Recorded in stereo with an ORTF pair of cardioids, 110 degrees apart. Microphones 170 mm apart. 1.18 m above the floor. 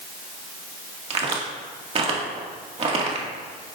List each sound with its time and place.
1.1 s a crack: 35° right, 2.0 m